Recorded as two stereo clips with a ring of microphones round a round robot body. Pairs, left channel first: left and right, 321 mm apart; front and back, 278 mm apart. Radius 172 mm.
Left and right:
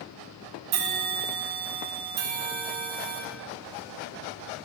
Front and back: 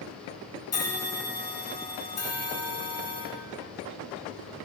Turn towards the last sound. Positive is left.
turn(degrees=-80)